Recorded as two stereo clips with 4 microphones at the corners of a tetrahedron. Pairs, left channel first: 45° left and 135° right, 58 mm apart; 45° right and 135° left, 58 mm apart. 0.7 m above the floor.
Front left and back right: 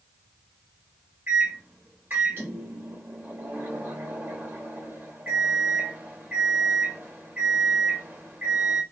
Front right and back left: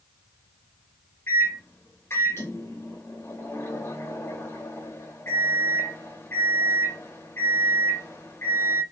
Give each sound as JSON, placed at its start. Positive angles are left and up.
{"t": 1.3, "sound": "a microwave", "azimuth_deg": -85, "distance_m": 0.6}